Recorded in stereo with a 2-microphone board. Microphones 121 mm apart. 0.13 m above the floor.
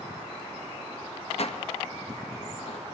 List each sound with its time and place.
1.4 s dishes clattering: 60° left (ahead or behind), 1.6 m